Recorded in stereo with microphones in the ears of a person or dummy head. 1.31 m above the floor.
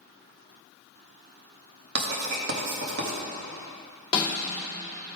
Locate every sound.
1.9 s writing: 60° right (ahead or behind), 1.7 m
4.1 s a snare drum: 30° left (ahead or behind), 2.5 m